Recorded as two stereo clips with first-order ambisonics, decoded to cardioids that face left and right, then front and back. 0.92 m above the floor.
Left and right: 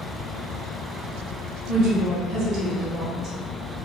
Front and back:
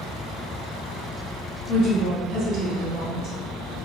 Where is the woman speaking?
135° right, 1.7 m.